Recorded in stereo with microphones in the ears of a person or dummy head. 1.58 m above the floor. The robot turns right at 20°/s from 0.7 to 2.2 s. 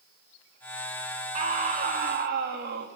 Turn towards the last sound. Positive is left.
turn(degrees=-45)  # may be behind; listen again after turning